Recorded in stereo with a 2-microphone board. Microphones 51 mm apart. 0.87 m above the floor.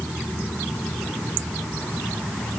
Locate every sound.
Only background noise.